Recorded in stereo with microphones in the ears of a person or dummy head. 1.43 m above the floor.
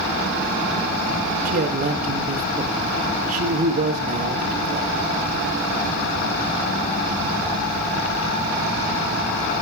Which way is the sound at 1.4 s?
40° right (ahead or behind).